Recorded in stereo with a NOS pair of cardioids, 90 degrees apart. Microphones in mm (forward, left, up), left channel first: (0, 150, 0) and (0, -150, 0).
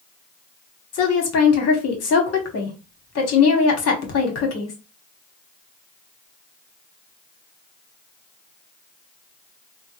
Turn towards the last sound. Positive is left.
turn(degrees=55)